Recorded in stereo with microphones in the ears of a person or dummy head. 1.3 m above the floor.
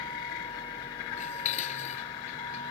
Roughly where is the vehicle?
Left.